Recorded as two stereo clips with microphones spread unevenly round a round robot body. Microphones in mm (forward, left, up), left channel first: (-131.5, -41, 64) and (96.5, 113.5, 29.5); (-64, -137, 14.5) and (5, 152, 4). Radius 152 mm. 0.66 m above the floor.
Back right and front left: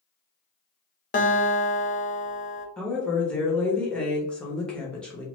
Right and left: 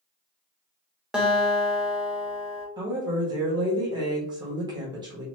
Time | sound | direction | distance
1.1 | a guitar | 160° left | 0.7 m
2.8 | a woman speaking | 115° left | 0.9 m